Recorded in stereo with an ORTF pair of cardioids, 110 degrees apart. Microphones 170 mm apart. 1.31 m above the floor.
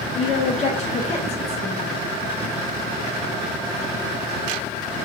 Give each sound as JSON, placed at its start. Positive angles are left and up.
{"t": 0.1, "sound": "a woman speaking", "azimuth_deg": 40, "distance_m": 0.6}